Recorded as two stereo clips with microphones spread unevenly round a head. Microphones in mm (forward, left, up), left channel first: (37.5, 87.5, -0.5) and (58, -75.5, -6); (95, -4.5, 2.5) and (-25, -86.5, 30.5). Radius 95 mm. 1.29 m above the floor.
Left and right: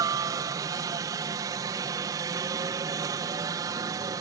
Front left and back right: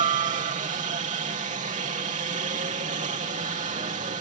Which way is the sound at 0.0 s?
145° right.